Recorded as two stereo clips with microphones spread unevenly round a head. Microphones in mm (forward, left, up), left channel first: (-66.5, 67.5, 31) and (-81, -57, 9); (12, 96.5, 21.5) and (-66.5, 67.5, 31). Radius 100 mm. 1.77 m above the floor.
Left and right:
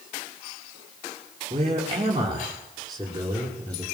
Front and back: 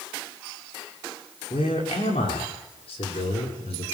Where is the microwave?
No microwave in this recording.